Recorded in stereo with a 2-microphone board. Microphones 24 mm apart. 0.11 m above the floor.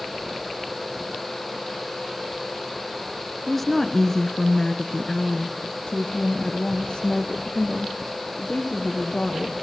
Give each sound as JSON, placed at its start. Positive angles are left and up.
{"t": 3.5, "sound": "a woman speaking", "side_deg": 5, "distance_m": 1.1}